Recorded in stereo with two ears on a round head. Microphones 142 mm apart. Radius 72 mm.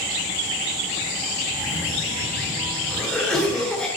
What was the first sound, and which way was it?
A cough, 10° left (ahead or behind).